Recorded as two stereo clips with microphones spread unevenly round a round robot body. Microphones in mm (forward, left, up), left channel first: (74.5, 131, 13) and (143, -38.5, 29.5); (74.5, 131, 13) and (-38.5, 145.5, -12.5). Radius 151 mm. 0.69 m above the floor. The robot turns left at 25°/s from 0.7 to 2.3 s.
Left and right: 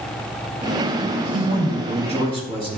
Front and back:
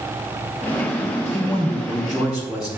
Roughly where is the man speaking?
Right.